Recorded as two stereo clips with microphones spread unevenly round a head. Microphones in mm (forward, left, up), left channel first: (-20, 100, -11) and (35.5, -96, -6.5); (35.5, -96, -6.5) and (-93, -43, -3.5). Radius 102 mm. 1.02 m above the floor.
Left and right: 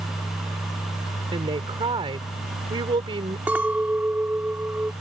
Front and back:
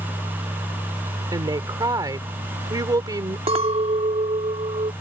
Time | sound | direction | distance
1.3 | a woman speaking | 140° right | ?
3.5 | a clink | 155° right | ?